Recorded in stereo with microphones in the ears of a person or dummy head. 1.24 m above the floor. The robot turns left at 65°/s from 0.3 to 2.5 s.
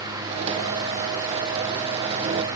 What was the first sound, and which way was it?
Only background noise.